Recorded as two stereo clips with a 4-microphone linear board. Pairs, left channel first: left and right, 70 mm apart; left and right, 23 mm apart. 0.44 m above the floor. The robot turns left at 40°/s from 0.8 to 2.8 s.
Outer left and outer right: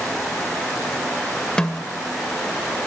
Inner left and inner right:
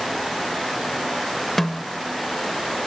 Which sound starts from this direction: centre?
A snare drum, at 1.6 s.